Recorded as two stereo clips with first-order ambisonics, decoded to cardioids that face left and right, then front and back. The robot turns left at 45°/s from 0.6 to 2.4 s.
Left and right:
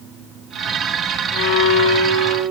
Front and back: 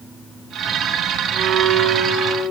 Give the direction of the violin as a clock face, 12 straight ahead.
8 o'clock.